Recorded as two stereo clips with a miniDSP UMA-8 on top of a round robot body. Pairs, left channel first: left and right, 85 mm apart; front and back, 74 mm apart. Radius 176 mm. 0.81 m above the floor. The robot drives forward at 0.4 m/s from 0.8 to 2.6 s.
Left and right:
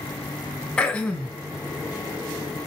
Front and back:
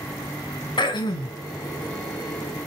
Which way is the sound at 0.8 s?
15° left.